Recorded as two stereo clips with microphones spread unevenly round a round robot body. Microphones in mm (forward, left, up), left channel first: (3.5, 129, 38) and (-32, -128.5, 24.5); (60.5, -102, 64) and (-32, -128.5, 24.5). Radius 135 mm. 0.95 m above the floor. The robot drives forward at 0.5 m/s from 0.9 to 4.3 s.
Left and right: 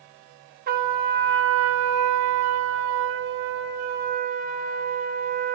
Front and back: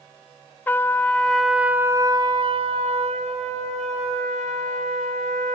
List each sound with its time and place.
0.7 s a trumpet: 40° right, 0.8 m; by 5.5 s 160° right, 1.3 m